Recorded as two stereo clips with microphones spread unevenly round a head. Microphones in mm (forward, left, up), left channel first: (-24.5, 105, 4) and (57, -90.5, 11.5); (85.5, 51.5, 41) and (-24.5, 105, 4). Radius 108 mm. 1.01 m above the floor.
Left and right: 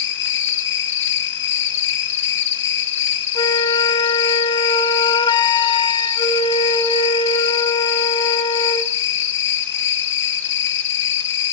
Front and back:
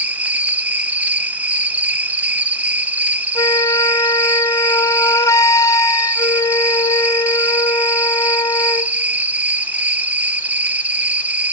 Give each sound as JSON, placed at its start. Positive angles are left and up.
{"t": 0.0, "sound": "an insect", "azimuth_deg": 80, "distance_m": 1.3}
{"t": 3.4, "sound": "a flute", "azimuth_deg": 45, "distance_m": 0.7}